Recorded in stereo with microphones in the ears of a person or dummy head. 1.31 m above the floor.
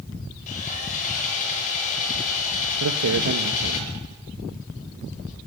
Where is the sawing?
40° left (ahead or behind), 5.5 m.